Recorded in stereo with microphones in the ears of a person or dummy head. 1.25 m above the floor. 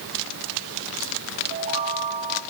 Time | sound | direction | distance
1.5 | a chime | 45° right (ahead or behind) | 1.0 m